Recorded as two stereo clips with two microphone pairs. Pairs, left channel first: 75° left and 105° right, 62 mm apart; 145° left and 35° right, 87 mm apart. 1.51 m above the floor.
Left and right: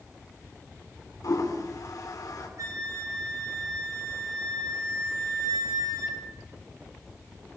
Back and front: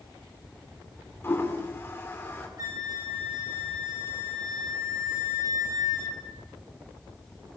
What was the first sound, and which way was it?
A toilet flushing, 85° left.